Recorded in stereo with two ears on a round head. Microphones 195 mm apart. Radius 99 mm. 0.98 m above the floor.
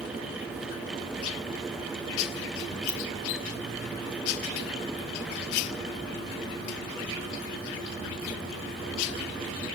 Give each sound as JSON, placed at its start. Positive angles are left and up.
{"t": 2.9, "sound": "a ringtone", "side_deg": -70, "distance_m": 4.5}